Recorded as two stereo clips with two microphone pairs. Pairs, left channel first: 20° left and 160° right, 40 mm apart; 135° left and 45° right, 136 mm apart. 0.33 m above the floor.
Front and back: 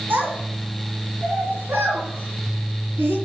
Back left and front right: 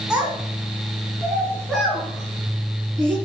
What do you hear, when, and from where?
0.1 s a child speaking: 130° right, 2.5 m; by 3.1 s 140° right, 4 m